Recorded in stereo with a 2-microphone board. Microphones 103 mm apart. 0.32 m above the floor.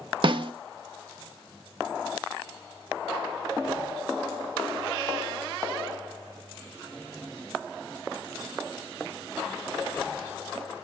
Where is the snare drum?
55° right (ahead or behind), 0.6 m.